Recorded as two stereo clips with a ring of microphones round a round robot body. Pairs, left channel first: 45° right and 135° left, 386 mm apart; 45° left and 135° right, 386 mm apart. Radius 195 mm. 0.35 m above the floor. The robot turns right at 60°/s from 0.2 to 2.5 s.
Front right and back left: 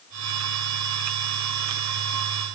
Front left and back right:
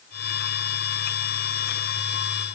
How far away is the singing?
No singing in this recording.